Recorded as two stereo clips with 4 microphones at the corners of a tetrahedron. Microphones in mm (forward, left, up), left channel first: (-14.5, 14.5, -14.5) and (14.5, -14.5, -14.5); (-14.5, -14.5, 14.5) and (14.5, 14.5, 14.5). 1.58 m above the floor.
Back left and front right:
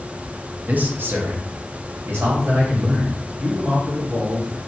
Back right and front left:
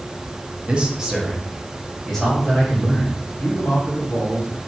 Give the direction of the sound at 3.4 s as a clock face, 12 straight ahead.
4 o'clock.